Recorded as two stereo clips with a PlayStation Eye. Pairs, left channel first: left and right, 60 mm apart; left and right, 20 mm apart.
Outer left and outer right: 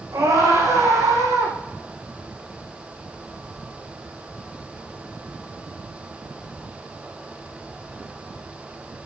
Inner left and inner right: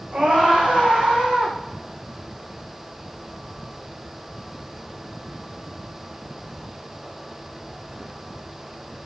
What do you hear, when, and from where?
0.1 s a scream: 70° right (ahead or behind), 6 m